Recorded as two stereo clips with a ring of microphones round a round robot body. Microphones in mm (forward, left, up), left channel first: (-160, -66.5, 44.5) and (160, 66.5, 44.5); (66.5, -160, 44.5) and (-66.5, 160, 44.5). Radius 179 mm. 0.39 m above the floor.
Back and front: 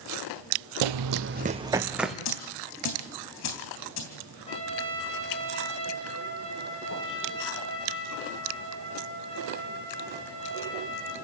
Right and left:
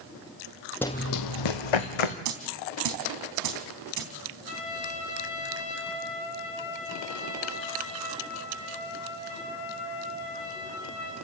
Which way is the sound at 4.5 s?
85° right.